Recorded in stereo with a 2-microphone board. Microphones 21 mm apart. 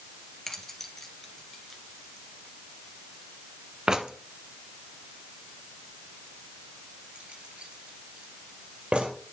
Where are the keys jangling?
15° left (ahead or behind), 2 m; by 9.1 s 60° right (ahead or behind), 3 m.